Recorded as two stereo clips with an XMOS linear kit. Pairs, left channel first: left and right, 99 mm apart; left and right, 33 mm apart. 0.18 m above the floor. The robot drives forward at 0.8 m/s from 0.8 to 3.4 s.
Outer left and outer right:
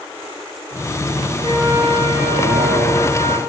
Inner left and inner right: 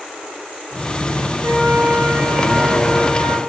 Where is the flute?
60° right (ahead or behind), 5.5 m; by 3.4 s 75° right (ahead or behind), 5 m.